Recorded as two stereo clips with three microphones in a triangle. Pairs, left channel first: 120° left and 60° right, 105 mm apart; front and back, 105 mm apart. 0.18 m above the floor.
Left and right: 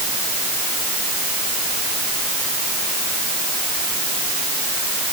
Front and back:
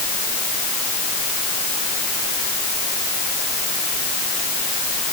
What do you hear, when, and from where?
Only background noise.